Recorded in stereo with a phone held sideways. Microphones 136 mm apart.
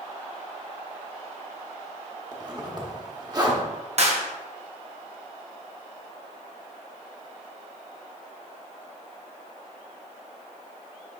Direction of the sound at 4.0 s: 55° right (ahead or behind).